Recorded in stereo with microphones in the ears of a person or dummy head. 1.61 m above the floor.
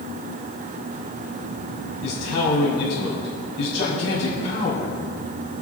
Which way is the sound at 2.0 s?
75° left (ahead or behind).